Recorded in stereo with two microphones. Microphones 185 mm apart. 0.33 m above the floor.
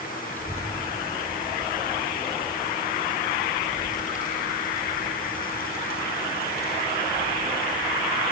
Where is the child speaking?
10° left (ahead or behind), 3.5 m; by 8.3 s 65° left (ahead or behind), 7 m.